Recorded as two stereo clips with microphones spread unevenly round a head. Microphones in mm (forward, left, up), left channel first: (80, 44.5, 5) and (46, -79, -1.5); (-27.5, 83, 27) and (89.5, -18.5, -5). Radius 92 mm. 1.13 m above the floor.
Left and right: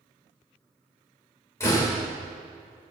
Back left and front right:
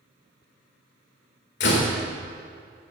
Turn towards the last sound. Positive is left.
turn(degrees=150)